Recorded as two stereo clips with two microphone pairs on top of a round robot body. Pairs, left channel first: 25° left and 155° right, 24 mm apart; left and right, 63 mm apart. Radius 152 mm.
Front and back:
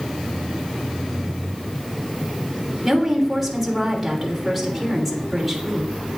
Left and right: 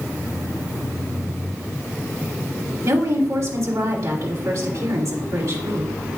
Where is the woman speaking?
65° right, 3 m.